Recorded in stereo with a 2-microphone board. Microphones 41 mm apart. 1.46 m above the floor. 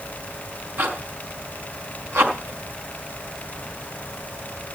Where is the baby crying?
No baby crying in this recording.